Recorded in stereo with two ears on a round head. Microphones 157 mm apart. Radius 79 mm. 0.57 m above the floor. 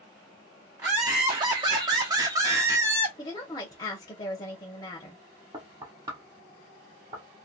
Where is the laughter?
20° right (ahead or behind), 0.8 m; by 3.1 s 15° right (ahead or behind), 1.1 m.